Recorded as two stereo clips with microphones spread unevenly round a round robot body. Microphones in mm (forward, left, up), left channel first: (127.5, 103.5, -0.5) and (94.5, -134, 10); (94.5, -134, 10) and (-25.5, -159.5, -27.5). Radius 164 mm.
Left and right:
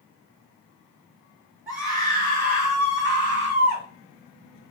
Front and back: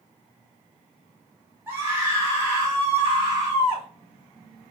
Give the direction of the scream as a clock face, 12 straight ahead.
6 o'clock.